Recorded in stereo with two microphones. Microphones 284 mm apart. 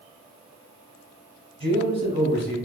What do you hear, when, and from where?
1.6 s a man speaking: 20° right (ahead or behind), 1.1 m